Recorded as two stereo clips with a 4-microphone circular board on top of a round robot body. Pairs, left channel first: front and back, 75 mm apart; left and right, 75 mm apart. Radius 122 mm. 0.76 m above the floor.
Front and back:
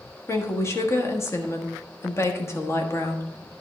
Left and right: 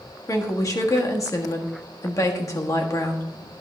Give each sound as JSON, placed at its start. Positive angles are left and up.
{"t": 0.3, "sound": "a woman speaking", "azimuth_deg": 50, "distance_m": 1.6}